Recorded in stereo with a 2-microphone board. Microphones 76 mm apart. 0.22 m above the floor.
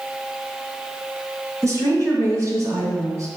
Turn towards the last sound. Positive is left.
turn(degrees=-45)  # may be behind; listen again after turning